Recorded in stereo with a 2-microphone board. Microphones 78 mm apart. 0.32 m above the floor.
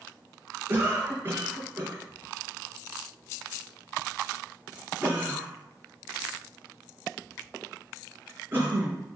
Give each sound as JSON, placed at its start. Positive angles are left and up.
{"t": 0.7, "sound": "a cough", "side_deg": -25, "distance_m": 3.5}